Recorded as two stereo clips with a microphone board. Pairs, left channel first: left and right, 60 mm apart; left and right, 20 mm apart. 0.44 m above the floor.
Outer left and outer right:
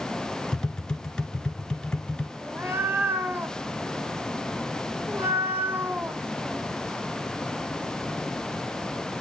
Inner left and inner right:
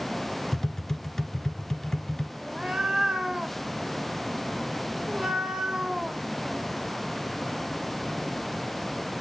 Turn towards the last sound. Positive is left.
turn(degrees=-35)  # may be behind; listen again after turning